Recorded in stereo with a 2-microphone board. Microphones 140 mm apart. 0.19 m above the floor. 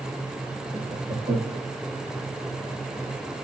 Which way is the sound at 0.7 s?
70° right (ahead or behind).